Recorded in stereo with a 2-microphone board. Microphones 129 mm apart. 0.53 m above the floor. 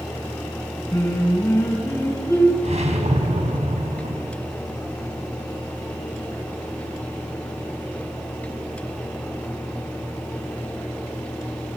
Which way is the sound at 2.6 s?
60° right (ahead or behind).